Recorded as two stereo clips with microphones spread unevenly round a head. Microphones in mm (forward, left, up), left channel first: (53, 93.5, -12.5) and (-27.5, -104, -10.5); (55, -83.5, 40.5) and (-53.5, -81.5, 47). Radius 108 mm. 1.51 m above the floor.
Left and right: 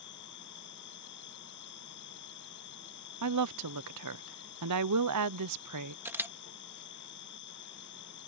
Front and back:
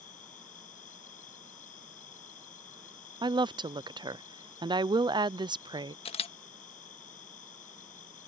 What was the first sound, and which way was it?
An insect, 30° left.